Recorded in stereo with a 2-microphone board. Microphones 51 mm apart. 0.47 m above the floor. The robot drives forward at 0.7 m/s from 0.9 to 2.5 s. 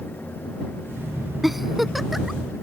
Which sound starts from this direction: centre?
A giggle, at 1.4 s.